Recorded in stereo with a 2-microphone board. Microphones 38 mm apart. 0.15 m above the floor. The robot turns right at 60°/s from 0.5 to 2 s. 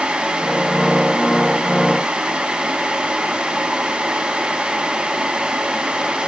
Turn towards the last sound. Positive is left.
No sound to turn to.